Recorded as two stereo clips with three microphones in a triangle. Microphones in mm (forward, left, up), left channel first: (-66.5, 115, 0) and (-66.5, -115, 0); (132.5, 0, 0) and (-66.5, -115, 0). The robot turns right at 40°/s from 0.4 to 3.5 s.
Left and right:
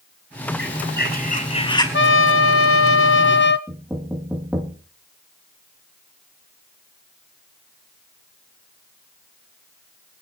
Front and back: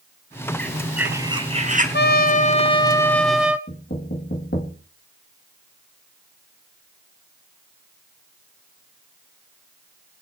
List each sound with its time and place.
0.6 s a bird: 110° left, 4 m; by 1.8 s 160° left, 4 m
1.9 s a trumpet: 65° left, 1.1 m; by 3.6 s 125° left, 1.1 m
3.7 s knocking: 10° right, 2.5 m